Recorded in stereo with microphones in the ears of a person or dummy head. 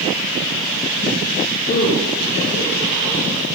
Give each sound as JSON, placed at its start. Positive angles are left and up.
{"t": 1.7, "sound": "a man speaking", "side_deg": 70, "distance_m": 1.7}